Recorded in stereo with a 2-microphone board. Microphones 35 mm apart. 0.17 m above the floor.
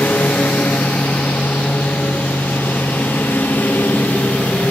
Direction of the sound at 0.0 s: 75° left (ahead or behind).